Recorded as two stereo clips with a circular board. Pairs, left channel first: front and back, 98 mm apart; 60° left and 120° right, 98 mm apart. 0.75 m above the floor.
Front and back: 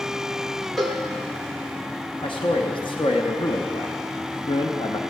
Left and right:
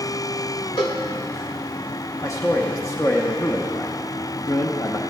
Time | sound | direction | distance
0.8 | a cowbell | 90° left | 1.3 m
2.2 | a man speaking | 10° left | 0.9 m